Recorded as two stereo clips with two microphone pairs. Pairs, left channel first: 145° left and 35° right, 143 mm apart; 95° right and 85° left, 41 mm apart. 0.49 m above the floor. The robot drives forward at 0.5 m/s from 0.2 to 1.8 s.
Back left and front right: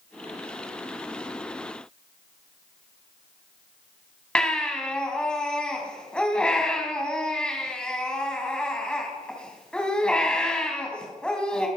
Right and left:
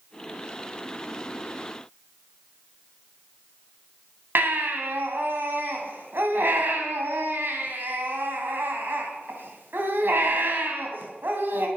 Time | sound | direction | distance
4.3 | a baby crying | 60° left | 3 m